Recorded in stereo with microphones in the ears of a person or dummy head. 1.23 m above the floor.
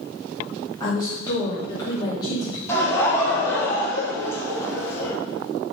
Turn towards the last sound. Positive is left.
turn(degrees=15)  # may be behind; listen again after turning